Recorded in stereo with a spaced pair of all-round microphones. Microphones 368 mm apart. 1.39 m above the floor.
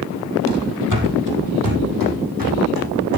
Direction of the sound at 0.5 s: 50° right (ahead or behind).